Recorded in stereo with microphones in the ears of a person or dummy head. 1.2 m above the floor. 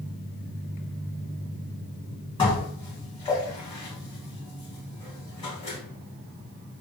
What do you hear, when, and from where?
2.4 s dishes clattering: 20° left (ahead or behind), 1.3 m